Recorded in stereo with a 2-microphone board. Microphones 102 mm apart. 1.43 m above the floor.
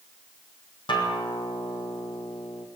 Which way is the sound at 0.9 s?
50° left (ahead or behind).